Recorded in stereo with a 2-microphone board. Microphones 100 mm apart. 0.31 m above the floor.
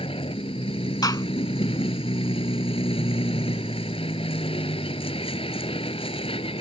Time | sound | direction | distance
0.0 | a vehicle | 70° left (ahead or behind) | ?
1.0 | a gunshot | 45° left (ahead or behind) | ?